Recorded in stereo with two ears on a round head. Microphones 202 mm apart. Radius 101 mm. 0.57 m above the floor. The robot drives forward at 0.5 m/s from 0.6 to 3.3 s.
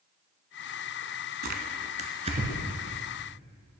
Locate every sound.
1.4 s tearing paper: 45° right (ahead or behind), 0.8 m; by 2.8 s 25° right (ahead or behind), 1.2 m